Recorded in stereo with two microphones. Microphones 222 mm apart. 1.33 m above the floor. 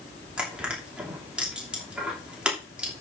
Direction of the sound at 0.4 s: 5° right (ahead or behind).